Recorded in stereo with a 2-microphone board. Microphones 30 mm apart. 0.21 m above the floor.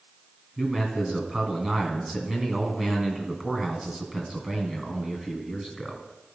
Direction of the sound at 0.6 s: 15° right (ahead or behind).